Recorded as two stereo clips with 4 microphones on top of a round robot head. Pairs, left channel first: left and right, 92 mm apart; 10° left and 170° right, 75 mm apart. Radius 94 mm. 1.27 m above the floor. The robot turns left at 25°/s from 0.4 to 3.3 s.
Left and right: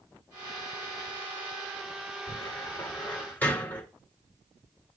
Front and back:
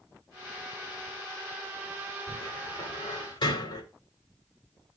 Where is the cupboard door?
45° left, 2 m; by 3.8 s 20° left, 2 m.